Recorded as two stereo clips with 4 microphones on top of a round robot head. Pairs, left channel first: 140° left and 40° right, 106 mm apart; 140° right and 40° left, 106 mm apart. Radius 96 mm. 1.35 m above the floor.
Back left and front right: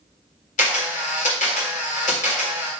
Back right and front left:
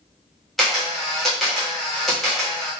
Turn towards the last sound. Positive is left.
turn(degrees=135)